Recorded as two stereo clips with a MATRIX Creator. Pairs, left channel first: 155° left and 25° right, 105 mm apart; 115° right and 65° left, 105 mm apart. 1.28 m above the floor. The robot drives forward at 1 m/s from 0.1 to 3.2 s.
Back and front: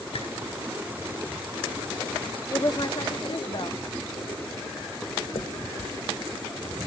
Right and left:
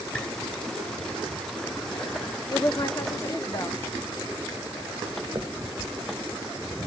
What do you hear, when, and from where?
0.1 s a squeak: 175° left, 3.5 m
2.5 s a woman speaking: 150° right, 0.6 m; by 3.8 s 170° right, 1.2 m
5.3 s a finger snap: 130° left, 1.4 m